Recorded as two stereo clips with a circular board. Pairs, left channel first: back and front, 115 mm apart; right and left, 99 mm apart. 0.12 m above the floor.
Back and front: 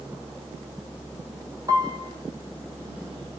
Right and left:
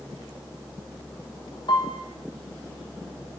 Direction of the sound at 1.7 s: 55° right.